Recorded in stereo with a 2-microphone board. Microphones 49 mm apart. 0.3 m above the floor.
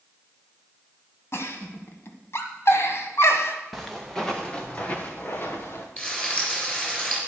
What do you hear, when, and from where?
1.3 s a giggle: 60° left (ahead or behind), 1.1 m
3.7 s footsteps: centre (ahead or behind), 2 m; by 5.9 s 55° left (ahead or behind), 2 m
6.0 s frying: 25° left (ahead or behind), 4 m